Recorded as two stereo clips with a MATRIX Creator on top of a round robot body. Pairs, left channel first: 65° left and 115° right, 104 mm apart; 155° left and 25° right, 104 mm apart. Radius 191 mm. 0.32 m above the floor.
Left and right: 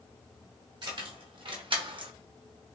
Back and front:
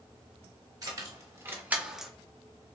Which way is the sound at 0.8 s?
75° right.